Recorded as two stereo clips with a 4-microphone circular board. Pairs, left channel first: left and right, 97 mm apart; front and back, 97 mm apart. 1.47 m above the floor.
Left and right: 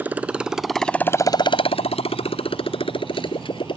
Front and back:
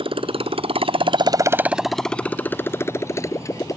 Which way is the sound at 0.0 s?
160° right.